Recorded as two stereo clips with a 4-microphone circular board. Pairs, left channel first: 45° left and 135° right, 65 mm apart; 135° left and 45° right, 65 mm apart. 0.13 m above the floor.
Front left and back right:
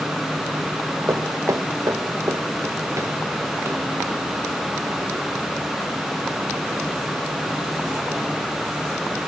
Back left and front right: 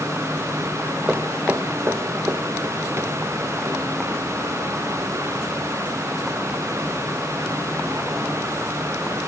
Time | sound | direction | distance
1.1 | footsteps | 115° right | 1.2 m